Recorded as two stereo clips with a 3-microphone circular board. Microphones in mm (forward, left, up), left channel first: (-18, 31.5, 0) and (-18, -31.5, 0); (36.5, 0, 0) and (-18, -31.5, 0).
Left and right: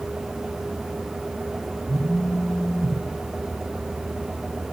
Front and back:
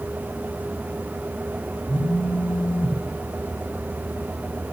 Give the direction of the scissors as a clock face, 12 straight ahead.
No scissors in this recording.